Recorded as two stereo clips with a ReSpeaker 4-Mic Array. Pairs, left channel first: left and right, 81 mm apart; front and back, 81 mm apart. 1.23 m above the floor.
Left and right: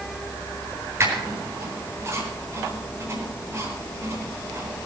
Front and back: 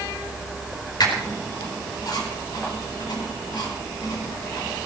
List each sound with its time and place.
1.0 s a squeak: 35° right, 4 m